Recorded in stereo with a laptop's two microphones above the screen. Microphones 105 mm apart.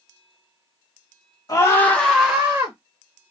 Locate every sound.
1.5 s a scream: 40° left (ahead or behind), 1.1 m; by 2.8 s 25° right (ahead or behind), 1.5 m